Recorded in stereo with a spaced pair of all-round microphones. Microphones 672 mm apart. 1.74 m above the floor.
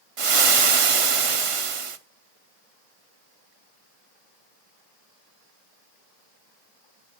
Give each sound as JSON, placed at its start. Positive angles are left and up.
{"t": 0.2, "sound": "frying", "side_deg": -50, "distance_m": 0.7}